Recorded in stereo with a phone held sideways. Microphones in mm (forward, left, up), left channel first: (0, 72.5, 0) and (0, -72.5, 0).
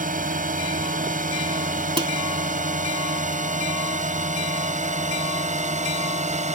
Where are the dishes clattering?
40° right (ahead or behind).